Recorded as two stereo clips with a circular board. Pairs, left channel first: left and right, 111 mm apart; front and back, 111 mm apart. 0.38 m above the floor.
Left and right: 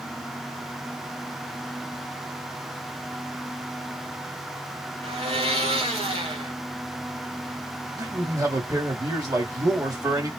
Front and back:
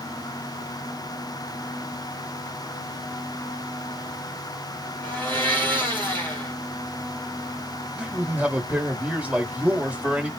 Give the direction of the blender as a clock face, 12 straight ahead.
2 o'clock.